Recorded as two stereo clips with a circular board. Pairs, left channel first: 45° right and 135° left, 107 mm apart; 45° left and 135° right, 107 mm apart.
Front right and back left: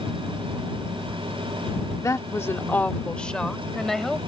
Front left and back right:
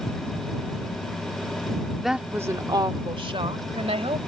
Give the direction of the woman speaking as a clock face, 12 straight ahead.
1 o'clock.